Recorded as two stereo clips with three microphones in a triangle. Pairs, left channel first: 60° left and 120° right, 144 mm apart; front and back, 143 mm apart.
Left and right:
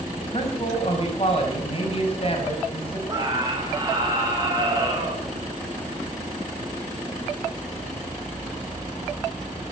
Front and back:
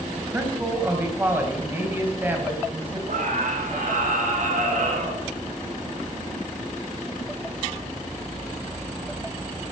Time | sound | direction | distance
0.2 | a man speaking | 105° left | 4 m
3.1 | a scream | straight behind | 3 m